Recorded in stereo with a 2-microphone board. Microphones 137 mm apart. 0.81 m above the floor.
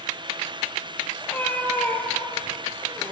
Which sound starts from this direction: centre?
A cat meowing, at 1.2 s.